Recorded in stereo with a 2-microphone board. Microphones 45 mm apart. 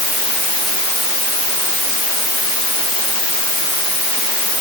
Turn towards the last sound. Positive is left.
No sound to turn to.